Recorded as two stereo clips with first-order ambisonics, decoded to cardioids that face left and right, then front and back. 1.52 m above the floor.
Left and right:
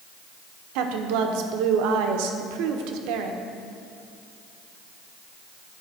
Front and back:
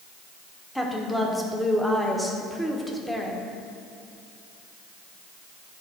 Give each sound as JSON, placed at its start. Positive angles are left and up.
{"t": 0.8, "sound": "a woman speaking", "azimuth_deg": -85, "distance_m": 0.9}